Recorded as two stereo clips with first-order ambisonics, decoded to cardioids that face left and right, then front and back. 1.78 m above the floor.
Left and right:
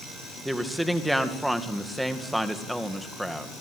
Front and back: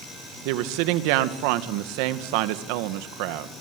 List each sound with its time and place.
0.5 s a woman speaking: 175° right, 2 m